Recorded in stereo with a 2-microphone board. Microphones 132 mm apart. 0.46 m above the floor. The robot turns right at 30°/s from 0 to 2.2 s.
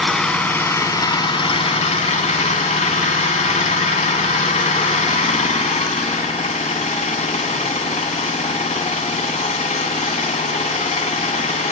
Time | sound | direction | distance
0.0 | an engine running | straight ahead | 1.0 m